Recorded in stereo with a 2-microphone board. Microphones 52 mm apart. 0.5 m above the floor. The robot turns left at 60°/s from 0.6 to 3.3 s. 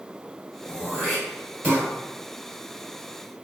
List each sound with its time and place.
0.7 s throat clearing: 25° left (ahead or behind), 1.6 m; by 1.9 s 40° right (ahead or behind), 1.6 m